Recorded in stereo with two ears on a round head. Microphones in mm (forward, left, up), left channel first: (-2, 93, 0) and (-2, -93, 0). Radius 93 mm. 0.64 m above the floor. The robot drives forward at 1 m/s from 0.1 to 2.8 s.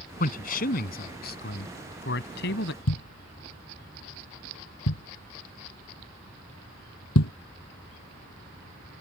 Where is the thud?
85° left.